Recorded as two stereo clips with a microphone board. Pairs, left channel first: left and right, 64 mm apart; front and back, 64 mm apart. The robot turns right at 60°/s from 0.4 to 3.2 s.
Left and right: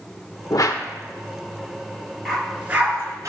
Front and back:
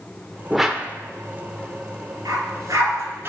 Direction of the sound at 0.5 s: 90° left.